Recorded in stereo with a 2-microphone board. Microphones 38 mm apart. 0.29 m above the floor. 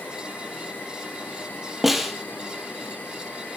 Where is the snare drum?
5° right (ahead or behind), 2 m.